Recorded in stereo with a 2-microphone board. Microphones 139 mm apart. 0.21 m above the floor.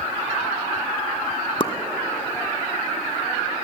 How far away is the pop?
About 1.6 m.